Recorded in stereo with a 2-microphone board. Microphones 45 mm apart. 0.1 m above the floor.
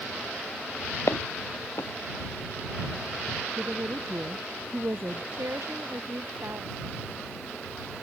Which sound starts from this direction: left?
Footsteps, at 1.1 s.